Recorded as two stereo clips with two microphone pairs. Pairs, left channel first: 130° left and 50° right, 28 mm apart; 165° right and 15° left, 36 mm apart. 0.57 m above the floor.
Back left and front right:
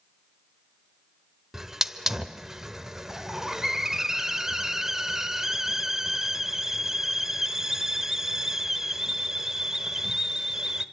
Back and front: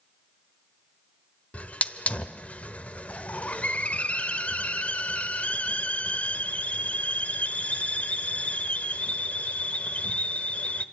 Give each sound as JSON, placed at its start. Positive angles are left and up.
{"t": 1.5, "sound": "a hiss", "azimuth_deg": -120, "distance_m": 1.1}